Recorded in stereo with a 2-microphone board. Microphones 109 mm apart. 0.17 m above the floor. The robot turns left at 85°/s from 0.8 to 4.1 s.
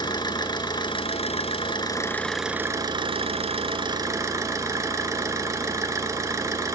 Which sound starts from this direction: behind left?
An engine running, at 0.0 s.